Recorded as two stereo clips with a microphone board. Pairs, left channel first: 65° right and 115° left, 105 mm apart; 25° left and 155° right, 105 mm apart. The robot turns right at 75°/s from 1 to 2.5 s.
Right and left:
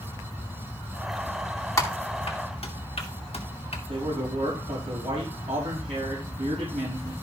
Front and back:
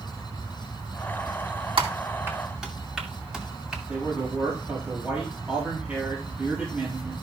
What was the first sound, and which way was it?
Typing on a keyboard, 130° right.